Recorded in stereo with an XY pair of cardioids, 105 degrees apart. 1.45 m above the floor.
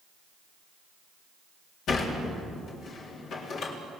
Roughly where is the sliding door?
Ahead left.